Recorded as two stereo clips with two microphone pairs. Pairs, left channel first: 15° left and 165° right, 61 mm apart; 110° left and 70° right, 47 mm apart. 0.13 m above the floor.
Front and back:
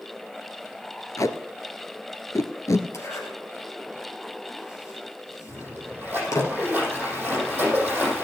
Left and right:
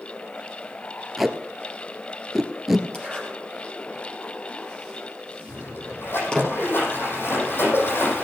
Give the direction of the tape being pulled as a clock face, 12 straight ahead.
11 o'clock.